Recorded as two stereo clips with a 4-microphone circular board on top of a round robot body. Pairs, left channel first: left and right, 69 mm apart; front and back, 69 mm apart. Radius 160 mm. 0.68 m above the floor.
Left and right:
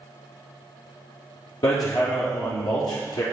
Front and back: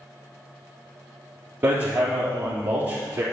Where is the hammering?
115° left, 4 m.